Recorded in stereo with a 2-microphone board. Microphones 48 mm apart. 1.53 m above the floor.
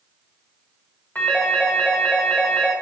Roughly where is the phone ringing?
Left.